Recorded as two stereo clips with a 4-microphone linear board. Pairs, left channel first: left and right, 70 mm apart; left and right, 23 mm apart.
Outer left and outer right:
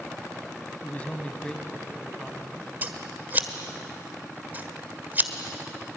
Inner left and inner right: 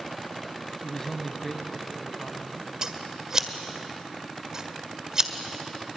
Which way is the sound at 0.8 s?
25° left (ahead or behind).